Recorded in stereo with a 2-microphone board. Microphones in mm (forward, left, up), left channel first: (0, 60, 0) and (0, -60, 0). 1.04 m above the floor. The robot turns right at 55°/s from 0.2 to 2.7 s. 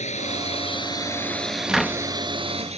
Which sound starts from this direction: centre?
A cupboard door, at 1.7 s.